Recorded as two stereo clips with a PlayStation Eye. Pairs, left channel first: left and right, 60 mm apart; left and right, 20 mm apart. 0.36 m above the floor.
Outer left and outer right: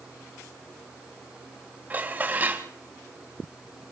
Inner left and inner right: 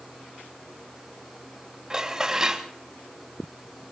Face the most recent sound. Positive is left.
turn(degrees=-30)  # may be behind; listen again after turning